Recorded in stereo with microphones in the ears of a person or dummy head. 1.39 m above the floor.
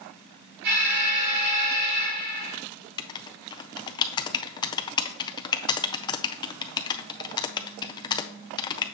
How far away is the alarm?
About 3.5 m.